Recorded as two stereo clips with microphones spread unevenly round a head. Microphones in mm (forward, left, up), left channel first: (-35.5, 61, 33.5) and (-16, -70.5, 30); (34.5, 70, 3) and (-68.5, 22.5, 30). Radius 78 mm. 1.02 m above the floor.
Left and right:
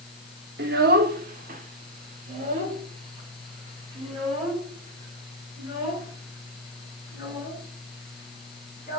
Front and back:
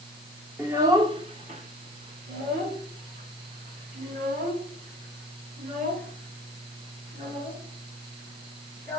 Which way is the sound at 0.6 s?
80° right.